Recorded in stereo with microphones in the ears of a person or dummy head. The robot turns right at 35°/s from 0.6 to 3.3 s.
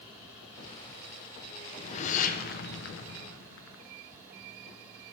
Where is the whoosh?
35° left, 0.5 m; by 3.8 s 95° left, 0.5 m.